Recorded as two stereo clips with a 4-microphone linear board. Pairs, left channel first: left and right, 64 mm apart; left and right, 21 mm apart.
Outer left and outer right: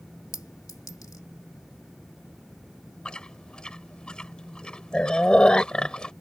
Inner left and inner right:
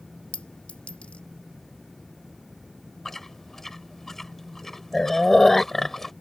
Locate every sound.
0.3 s a clink: 70° left (ahead or behind)
3.0 s chewing: 15° left (ahead or behind)